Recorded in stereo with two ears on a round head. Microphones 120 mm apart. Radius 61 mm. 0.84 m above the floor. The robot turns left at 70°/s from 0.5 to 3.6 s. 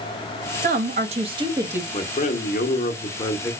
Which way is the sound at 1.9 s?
130° left.